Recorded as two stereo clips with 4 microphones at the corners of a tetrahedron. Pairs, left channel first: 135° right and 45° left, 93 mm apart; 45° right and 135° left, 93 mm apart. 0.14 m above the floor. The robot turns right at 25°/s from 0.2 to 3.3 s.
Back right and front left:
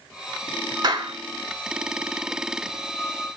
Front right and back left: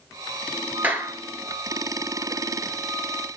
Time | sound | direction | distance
0.8 | a clap | 70° left | 1.9 m